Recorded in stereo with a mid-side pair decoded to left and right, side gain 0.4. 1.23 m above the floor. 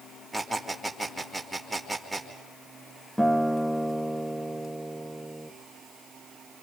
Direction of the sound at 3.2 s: 5° left.